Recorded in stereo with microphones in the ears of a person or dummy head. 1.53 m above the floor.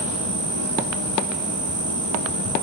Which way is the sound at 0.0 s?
60° right (ahead or behind).